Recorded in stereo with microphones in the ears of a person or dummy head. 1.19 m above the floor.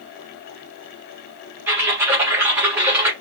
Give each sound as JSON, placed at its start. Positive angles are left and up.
{"t": 1.7, "sound": "typing on a keyboard", "side_deg": -10, "distance_m": 1.9}